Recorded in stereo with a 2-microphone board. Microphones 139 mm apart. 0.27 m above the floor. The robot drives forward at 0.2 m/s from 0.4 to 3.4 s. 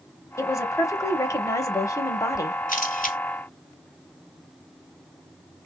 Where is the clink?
No clink in this recording.